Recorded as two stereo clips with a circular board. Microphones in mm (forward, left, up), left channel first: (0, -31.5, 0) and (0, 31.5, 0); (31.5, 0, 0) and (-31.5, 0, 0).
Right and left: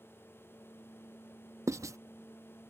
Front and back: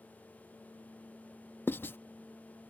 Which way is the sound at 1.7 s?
55° left.